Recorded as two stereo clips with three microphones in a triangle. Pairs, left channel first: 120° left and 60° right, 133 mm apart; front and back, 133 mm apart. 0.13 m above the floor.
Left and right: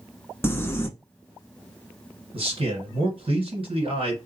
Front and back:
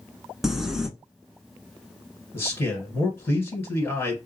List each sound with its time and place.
0.4 s crumpling: 100° left, 0.6 m
2.3 s a man speaking: 60° right, 2.0 m